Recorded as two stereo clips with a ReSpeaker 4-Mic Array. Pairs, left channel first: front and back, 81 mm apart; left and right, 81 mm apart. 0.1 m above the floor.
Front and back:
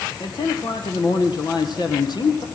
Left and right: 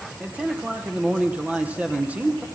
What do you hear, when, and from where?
0.2 s a man speaking: 20° right, 3 m